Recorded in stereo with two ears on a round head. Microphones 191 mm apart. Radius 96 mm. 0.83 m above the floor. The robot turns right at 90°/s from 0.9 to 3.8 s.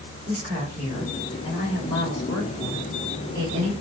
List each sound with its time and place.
0.3 s a woman speaking: 30° right, 2.5 m; by 3.7 s 140° right, 2.5 m